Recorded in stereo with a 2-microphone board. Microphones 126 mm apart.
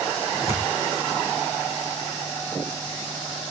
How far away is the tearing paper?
About 5 m.